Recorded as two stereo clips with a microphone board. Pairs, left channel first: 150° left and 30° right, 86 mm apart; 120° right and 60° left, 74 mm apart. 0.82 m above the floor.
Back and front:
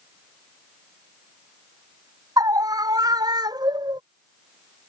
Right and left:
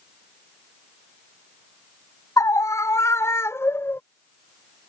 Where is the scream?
75° right; by 4.0 s 60° right.